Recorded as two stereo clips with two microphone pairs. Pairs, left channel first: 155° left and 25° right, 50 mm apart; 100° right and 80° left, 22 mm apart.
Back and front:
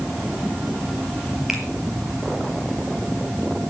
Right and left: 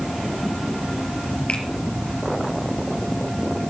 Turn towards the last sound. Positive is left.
turn(degrees=-110)